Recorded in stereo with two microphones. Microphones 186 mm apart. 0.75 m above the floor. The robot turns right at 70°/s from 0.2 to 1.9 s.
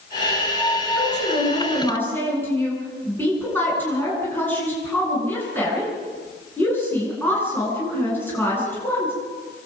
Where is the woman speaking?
100° left, 9.5 m; by 9.1 s 170° left, 9.5 m.